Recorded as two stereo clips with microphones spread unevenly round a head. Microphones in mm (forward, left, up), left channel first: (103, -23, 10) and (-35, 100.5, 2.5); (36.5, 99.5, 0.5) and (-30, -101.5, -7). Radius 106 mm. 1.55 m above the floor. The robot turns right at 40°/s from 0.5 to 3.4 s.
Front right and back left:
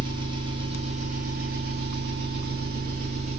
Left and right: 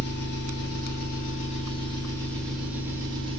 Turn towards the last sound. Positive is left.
turn(degrees=-165)